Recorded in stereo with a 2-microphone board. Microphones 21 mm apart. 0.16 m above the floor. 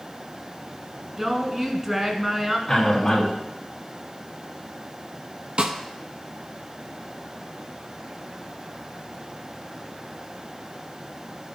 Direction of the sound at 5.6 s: 55° right (ahead or behind).